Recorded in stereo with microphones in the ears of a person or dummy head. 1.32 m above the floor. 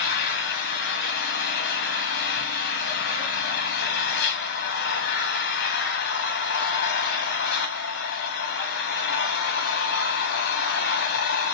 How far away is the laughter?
I don't hear laughter.